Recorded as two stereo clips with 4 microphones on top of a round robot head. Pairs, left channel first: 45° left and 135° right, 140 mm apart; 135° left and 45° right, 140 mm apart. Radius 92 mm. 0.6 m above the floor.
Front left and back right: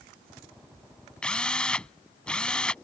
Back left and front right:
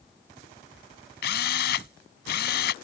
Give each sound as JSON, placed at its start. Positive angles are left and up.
{"t": 1.2, "sound": "a drill", "azimuth_deg": 130}